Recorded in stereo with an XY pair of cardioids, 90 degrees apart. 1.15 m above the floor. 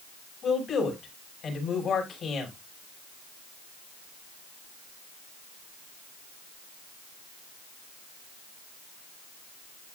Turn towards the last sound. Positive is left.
turn(degrees=60)